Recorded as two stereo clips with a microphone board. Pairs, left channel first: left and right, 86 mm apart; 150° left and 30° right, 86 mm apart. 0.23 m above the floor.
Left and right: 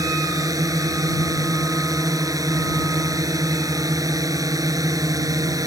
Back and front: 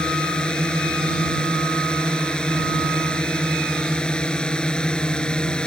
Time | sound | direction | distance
0.0 | a drone | 130° right | ?